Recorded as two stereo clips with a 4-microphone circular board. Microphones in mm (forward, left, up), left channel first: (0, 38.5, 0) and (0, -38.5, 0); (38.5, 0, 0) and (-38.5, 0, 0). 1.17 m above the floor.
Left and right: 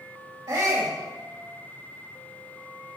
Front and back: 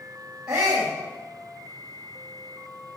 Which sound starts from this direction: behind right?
A shout, at 0.5 s.